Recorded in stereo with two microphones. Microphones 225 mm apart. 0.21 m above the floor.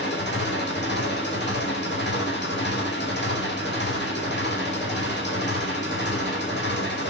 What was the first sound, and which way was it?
An engine running, 50° left (ahead or behind).